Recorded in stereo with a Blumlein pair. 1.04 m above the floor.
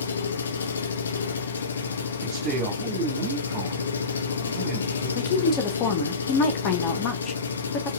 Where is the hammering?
No hammering in this recording.